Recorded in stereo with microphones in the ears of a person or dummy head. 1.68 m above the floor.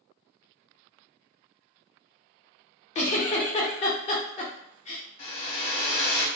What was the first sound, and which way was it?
A giggle, 35° left (ahead or behind).